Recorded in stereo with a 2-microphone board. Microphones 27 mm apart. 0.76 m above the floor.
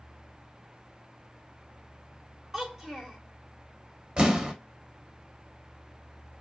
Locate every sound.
2.5 s a child speaking: 20° right (ahead or behind), 2 m
4.2 s an explosion: 35° right (ahead or behind), 1.0 m